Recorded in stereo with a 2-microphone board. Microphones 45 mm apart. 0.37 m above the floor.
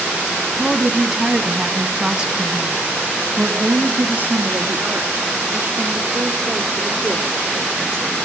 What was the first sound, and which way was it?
A woman speaking, 5° left (ahead or behind).